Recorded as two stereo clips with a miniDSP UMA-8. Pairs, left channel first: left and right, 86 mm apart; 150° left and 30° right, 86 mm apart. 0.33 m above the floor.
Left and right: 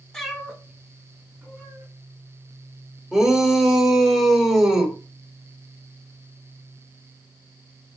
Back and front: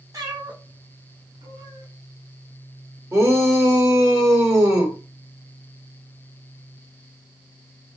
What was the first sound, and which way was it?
A cat meowing, 5° left.